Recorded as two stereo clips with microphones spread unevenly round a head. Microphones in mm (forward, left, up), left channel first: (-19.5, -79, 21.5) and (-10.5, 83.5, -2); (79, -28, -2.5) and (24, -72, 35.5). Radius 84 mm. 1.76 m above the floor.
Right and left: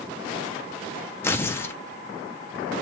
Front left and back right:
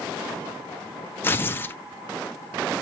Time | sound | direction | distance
1.2 | tearing paper | 50° right | 0.8 m